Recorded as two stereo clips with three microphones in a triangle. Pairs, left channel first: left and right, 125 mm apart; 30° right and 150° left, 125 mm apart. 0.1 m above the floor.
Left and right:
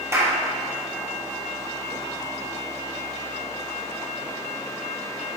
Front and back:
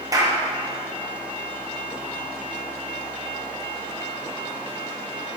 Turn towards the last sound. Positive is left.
turn(degrees=-155)